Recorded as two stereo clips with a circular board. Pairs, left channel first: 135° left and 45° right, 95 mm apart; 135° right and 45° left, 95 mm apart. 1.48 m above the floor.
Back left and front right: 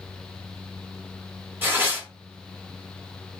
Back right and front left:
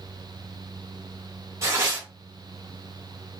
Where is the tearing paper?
10° left, 1.2 m.